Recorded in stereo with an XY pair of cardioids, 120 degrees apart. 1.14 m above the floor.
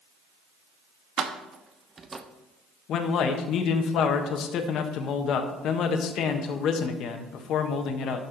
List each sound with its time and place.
1.2 s keys jangling: 60° right, 1.0 m; by 2.2 s 20° right, 0.7 m
2.9 s a man speaking: 65° left, 1.1 m